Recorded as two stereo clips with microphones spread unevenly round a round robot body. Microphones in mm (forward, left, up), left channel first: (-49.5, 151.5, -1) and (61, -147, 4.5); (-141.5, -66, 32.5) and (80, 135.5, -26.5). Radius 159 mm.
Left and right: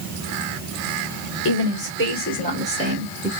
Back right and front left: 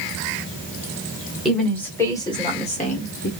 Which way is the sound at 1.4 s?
120° left.